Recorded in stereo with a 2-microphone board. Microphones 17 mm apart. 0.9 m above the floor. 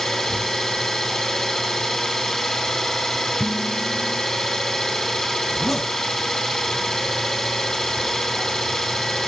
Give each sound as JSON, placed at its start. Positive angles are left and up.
{"t": 0.0, "sound": "an engine running", "side_deg": 35, "distance_m": 5.0}
{"t": 3.4, "sound": "dishes clattering", "side_deg": -5, "distance_m": 2.5}
{"t": 5.5, "sound": "a zipper", "side_deg": 10, "distance_m": 4.0}